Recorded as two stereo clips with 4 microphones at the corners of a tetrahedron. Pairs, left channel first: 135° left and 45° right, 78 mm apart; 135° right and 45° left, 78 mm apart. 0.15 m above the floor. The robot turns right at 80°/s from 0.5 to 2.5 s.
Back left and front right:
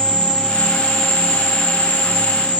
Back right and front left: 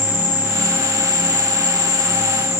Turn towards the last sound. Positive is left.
turn(degrees=120)